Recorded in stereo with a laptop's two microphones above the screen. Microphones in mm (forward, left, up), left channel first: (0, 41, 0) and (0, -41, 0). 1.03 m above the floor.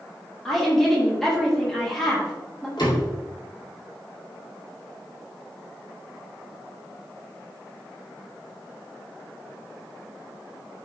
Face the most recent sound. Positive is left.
turn(degrees=65)  # may be behind; listen again after turning